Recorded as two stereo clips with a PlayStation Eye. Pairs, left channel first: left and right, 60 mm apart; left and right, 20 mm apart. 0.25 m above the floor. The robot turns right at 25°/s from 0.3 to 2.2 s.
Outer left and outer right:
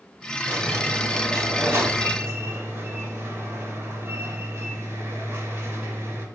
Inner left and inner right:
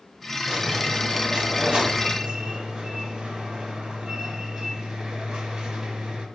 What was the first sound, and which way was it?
A squeak, 110° right.